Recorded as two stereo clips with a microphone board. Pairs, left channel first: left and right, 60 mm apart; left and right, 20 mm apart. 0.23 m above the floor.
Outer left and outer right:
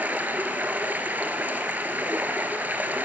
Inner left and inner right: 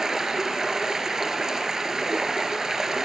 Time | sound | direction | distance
0.0 | running water | 30° right (ahead or behind) | 1.7 m